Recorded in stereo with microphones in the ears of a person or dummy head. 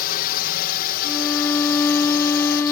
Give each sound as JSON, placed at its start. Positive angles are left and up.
{"t": 0.0, "sound": "a drone", "side_deg": 55}
{"t": 1.0, "sound": "a violin", "side_deg": 10}